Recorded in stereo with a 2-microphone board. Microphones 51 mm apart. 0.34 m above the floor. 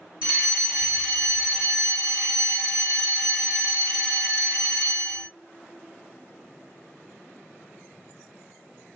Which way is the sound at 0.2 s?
20° right (ahead or behind).